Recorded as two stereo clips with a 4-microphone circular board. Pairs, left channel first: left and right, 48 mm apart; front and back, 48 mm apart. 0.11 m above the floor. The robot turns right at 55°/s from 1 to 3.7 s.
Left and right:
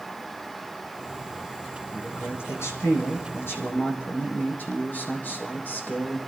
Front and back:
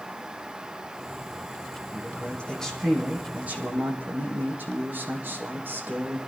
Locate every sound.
1.9 s a man speaking: 40° left, 4.5 m; by 6.2 s 135° left, 4.5 m